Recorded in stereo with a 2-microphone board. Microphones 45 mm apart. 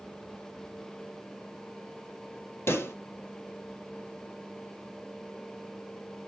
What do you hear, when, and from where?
2.7 s a pop: 60° left (ahead or behind), 1.8 m